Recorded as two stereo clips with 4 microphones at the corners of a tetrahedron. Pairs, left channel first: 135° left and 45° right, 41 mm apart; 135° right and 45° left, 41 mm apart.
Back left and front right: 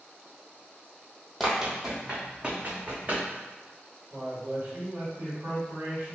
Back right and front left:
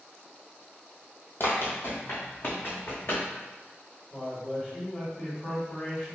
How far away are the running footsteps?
About 0.8 m.